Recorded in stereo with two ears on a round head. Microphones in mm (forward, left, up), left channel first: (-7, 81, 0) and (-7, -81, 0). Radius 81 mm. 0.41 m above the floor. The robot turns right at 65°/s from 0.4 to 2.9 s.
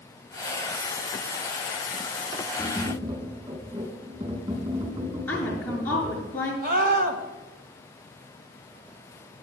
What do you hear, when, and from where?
2.6 s tapping: 15° right (ahead or behind), 4.5 m; by 6.2 s 35° right (ahead or behind), 4.5 m
5.3 s a woman speaking: 10° left (ahead or behind), 7 m
6.6 s a scream: 55° right (ahead or behind), 3 m